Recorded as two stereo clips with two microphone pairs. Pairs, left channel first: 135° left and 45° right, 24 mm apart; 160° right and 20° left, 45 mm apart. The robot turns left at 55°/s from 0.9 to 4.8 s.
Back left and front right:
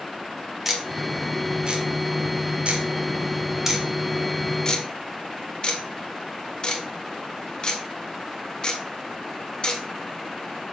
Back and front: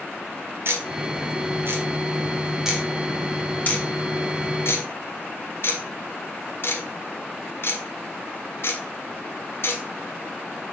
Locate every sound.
0.7 s ticking: 35° left, 1.6 m; by 10.6 s straight behind, 1.6 m